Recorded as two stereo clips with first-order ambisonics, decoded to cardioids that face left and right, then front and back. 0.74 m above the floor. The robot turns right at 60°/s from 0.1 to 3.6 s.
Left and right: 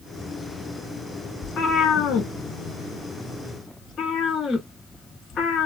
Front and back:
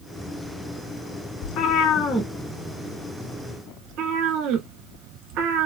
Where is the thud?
No thud in this recording.